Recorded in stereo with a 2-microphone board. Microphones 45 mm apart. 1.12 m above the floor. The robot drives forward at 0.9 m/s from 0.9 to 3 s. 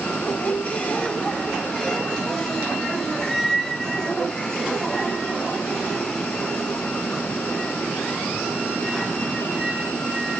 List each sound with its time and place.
0.1 s a squeak: 35° left (ahead or behind), 1.0 m; by 10.4 s 10° left (ahead or behind), 2.5 m